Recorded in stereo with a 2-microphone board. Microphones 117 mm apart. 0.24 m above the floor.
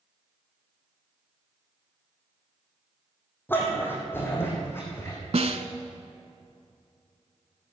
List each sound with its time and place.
3.5 s a dog barking: 15° left (ahead or behind), 2.5 m; by 5.2 s 20° left (ahead or behind), 3.5 m
5.3 s a snare drum: 65° right (ahead or behind), 0.8 m